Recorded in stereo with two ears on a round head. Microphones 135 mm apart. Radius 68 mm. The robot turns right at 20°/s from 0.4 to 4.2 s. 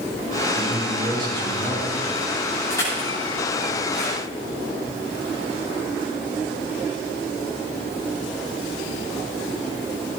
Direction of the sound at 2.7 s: 15° left (ahead or behind).